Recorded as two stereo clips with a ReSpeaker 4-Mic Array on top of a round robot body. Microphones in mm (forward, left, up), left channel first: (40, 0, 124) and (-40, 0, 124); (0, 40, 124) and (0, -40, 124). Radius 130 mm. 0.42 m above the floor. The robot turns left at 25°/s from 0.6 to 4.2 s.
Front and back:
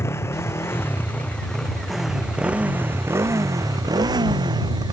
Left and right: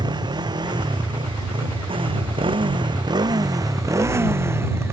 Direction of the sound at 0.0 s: 60° right.